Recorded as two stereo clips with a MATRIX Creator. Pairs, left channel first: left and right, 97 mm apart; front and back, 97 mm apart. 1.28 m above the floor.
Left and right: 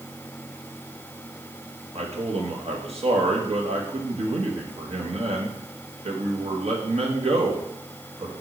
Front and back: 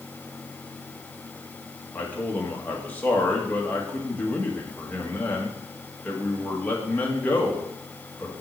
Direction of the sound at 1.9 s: 75° right.